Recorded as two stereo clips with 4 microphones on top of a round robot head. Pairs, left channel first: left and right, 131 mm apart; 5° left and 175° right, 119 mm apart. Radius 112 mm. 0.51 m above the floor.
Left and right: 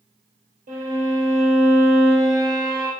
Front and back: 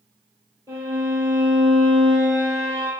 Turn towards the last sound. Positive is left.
turn(degrees=-100)